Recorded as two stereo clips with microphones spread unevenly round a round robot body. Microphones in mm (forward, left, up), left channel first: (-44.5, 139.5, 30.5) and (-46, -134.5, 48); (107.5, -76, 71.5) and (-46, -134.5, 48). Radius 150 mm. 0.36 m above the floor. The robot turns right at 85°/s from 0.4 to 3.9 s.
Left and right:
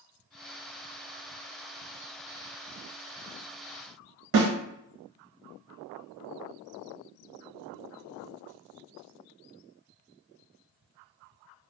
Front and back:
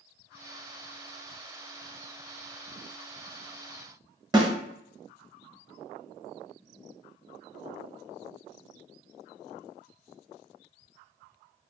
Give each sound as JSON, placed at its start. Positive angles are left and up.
{"t": 4.3, "sound": "a snare drum", "azimuth_deg": -95, "distance_m": 1.1}